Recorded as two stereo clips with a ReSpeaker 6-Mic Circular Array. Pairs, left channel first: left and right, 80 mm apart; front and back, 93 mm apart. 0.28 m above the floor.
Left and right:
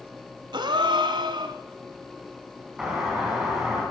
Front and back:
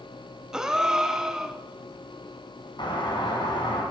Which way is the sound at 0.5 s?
95° right.